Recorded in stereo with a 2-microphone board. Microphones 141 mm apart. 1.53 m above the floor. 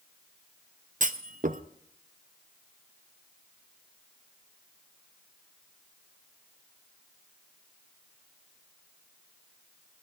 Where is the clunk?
65° right (ahead or behind), 0.6 m.